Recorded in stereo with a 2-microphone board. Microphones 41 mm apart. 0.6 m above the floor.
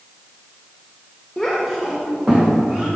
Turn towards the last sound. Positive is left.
turn(degrees=-40)  # may be behind; listen again after turning